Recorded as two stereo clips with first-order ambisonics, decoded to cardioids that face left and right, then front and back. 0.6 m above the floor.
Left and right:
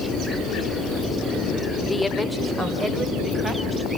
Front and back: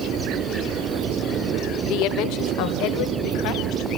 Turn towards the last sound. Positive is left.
turn(degrees=-15)